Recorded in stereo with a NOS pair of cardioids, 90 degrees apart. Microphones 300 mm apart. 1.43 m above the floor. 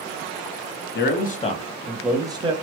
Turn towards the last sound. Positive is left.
turn(degrees=-20)